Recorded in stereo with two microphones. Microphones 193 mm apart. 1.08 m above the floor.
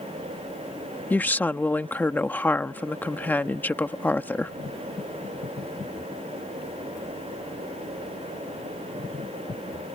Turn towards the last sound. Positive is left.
turn(degrees=10)  # may be behind; listen again after turning